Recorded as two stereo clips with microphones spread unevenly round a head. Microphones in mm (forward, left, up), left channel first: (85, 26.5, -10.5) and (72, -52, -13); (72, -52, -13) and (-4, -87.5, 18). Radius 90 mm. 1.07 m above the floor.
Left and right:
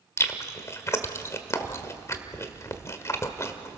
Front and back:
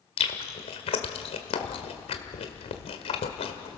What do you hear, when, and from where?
0.2 s chewing: 30° left, 1.6 m